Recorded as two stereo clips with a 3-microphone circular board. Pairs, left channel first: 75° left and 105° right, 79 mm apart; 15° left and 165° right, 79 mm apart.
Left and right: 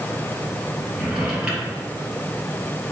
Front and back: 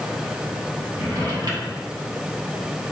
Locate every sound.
0.9 s a drawer: 175° left, 2.5 m